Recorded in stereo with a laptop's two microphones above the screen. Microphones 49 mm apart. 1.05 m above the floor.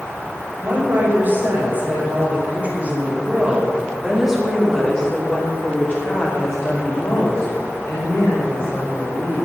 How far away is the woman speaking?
About 5.5 m.